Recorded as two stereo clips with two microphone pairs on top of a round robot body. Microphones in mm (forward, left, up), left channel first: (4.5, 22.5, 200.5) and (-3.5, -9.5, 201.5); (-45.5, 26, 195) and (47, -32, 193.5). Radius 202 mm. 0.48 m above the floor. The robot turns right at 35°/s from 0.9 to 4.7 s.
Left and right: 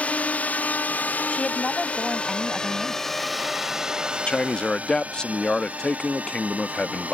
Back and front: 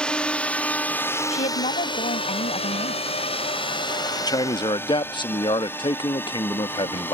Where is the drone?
70° left; by 7.2 s 140° right.